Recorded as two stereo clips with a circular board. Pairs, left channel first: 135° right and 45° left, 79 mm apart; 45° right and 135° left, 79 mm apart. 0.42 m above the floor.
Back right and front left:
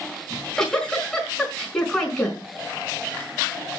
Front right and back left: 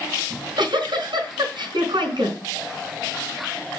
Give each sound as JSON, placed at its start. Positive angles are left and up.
{"t": 0.3, "sound": "a giggle", "azimuth_deg": 145, "distance_m": 4.5}